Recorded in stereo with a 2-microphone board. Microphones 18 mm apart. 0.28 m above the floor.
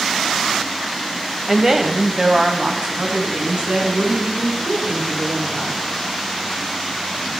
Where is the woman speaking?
15° right (ahead or behind), 1.6 m; by 5.8 s 75° right (ahead or behind), 5.5 m.